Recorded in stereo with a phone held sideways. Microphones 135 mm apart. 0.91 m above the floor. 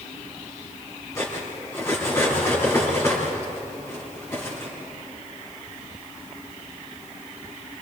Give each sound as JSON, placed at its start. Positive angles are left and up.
{"t": 1.1, "sound": "cutlery clinking", "side_deg": 20, "distance_m": 5.0}